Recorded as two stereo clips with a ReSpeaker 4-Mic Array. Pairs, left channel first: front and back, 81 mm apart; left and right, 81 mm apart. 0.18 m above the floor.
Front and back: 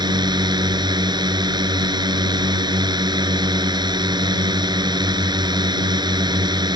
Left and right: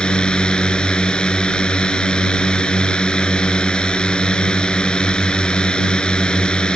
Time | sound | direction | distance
0.0 | a drone | 170° left | ?